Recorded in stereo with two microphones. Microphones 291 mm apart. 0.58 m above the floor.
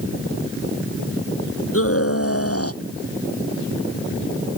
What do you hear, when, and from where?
1.7 s a scream: 50° left (ahead or behind); by 2.8 s 55° left (ahead or behind)